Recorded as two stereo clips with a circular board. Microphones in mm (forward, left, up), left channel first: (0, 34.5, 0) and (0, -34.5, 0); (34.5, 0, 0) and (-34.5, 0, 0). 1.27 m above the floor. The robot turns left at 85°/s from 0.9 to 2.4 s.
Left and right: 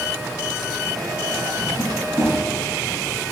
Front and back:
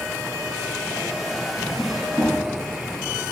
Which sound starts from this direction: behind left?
A drawer, at 1.6 s.